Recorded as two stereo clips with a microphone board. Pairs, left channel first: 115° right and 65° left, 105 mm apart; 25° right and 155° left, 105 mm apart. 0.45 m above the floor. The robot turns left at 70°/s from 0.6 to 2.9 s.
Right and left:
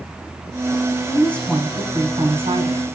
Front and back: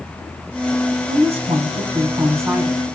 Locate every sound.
1.1 s a woman speaking: 170° right, 3.5 m; by 2.9 s 65° left, 3.5 m